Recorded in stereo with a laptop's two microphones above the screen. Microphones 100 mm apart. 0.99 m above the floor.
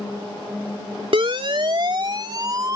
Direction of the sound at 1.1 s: 65° right (ahead or behind).